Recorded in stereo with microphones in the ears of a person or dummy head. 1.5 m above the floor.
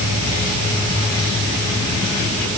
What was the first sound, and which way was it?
Only background noise.